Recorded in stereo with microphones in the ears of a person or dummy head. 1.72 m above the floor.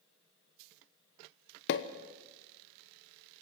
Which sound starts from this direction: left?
A pop, at 1.7 s.